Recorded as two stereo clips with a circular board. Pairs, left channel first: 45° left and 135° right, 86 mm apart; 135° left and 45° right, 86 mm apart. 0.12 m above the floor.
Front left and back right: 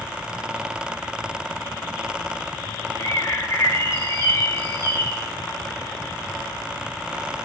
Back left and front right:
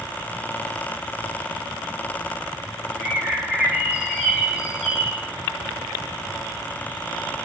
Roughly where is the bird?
Ahead left.